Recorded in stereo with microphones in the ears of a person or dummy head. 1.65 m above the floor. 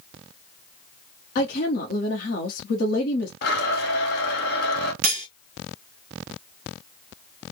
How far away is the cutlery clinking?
About 1.4 m.